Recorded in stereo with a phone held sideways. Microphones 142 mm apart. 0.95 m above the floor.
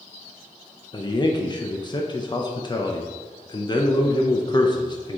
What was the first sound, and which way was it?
A man speaking, 30° left (ahead or behind).